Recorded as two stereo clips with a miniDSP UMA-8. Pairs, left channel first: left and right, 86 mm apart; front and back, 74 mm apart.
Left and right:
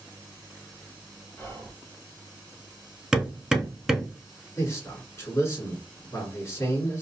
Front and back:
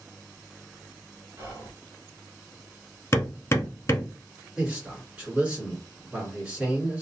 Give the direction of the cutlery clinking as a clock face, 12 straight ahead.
I don't hear cutlery clinking.